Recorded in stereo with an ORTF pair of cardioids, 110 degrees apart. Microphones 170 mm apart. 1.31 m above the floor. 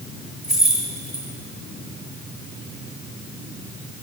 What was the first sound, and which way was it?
Keys jangling, 5° right.